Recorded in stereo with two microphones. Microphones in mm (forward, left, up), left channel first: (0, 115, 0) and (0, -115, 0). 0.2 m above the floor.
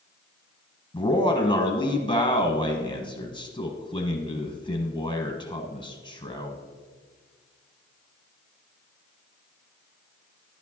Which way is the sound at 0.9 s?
20° left (ahead or behind).